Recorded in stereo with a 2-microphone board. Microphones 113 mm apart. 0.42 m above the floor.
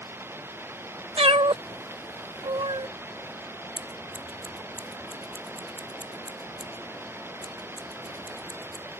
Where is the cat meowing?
55° right (ahead or behind).